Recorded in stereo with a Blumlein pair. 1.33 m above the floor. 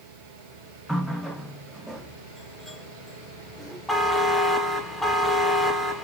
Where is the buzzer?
Straight ahead, 0.6 m.